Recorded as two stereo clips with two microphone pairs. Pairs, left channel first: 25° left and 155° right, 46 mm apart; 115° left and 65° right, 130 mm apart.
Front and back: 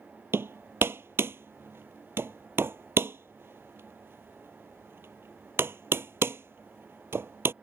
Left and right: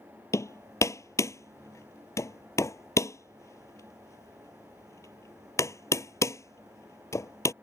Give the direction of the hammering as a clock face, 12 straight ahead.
6 o'clock.